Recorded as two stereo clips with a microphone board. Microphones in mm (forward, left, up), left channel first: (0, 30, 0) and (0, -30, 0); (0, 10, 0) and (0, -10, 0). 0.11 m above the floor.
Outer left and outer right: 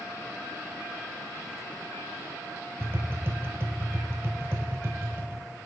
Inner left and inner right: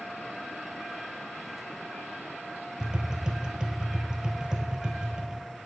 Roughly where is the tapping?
Right.